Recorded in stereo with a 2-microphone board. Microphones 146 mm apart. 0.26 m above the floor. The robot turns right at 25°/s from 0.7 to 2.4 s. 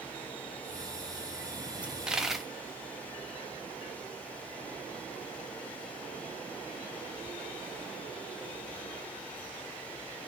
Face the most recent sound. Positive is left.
turn(degrees=0)  # may be behind; listen again after turning